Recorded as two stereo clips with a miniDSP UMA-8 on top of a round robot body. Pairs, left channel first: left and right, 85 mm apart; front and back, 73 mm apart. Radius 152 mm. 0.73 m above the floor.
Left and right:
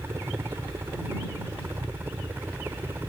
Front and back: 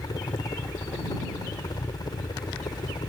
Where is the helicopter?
30° right; by 3.1 s 25° right.